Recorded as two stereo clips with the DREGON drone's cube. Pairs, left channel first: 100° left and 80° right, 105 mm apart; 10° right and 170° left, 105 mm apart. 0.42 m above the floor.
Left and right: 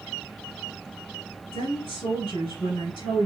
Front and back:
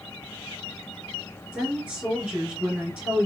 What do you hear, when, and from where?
1.5 s a woman speaking: 95° left, 1.9 m